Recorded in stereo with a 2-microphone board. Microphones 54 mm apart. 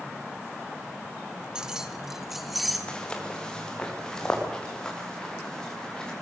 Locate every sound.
1.6 s keys jangling: 15° right (ahead or behind), 1.5 m; by 2.8 s centre (ahead or behind), 3 m
2.9 s footsteps: 15° left (ahead or behind), 4 m; by 6.1 s 10° left (ahead or behind), 7 m